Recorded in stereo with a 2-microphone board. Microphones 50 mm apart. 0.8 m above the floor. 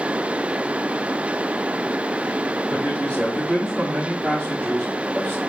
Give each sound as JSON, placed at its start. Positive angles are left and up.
{"t": 2.7, "sound": "a man speaking", "side_deg": 15, "distance_m": 4.5}